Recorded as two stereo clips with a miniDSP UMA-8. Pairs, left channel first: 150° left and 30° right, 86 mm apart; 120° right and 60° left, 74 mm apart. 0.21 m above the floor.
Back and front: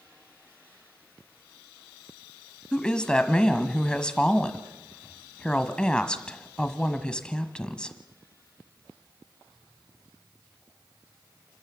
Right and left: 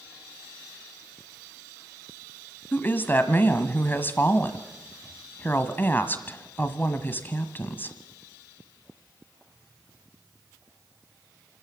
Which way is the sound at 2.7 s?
140° right.